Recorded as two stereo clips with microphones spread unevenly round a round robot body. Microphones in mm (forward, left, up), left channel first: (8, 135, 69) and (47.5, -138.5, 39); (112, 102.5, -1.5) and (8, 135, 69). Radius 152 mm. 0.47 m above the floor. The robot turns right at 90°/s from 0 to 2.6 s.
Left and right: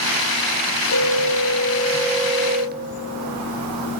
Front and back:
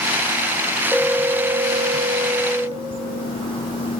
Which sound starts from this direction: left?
A phone ringing, at 0.9 s.